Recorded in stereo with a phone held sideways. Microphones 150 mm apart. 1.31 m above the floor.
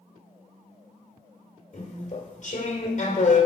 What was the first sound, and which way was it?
Chewing, 50° left (ahead or behind).